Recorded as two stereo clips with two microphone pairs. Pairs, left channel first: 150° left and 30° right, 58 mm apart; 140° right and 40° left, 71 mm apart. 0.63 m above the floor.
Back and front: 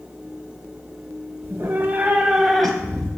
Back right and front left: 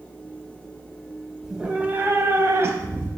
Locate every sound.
1.4 s a cat meowing: 40° right, 0.6 m; by 3.1 s 80° left, 0.8 m